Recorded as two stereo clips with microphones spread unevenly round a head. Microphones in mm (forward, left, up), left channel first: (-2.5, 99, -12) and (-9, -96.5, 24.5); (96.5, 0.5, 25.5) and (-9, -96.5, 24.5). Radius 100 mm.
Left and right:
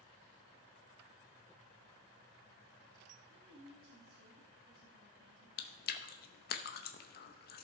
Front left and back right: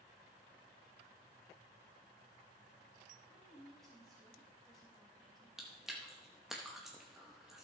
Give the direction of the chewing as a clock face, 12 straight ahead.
8 o'clock.